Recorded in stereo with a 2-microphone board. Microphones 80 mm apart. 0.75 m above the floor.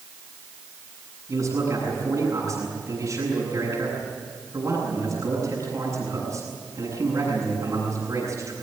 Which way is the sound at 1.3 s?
45° right (ahead or behind).